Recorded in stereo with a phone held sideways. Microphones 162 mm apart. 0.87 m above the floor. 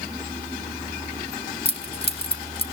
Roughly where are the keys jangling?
Left.